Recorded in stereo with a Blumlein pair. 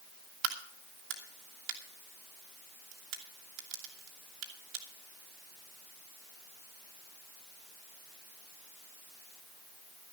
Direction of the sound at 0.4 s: 40° right.